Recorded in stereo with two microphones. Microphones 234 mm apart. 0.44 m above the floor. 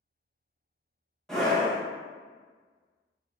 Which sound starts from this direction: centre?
A scream, at 1.3 s.